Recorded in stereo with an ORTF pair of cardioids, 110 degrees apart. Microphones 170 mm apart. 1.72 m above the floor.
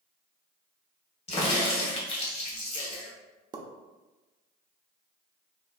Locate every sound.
1.3 s a crack: 35° left, 1.6 m
3.5 s a pop: 25° right, 0.8 m